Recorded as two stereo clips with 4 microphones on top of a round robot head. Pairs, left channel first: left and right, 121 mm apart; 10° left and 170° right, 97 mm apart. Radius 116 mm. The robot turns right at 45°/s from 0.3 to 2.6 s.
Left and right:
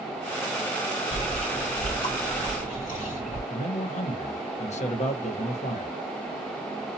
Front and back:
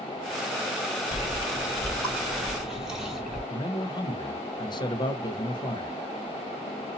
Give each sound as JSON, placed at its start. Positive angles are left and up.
{"t": 1.1, "sound": "chewing", "azimuth_deg": 40, "distance_m": 3.0}
{"t": 3.5, "sound": "a man speaking", "azimuth_deg": 60, "distance_m": 0.9}